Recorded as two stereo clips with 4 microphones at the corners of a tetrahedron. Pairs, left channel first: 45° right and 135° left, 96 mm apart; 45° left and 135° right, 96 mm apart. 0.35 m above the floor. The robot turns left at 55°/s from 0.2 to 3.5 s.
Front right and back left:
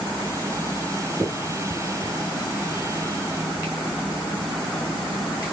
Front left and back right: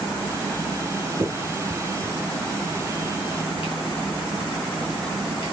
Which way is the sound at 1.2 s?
165° right.